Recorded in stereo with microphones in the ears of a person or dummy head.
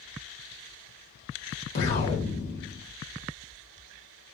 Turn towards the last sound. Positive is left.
turn(degrees=55)  # may be behind; listen again after turning